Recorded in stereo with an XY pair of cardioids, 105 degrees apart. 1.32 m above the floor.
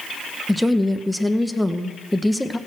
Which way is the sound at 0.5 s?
5° left.